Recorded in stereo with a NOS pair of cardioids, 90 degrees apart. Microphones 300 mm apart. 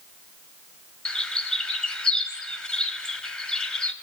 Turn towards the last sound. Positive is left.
turn(degrees=5)